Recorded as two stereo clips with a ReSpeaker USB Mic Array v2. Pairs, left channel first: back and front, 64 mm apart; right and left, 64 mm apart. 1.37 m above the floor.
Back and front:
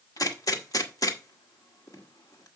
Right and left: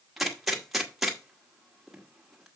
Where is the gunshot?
175° left, 1.5 m.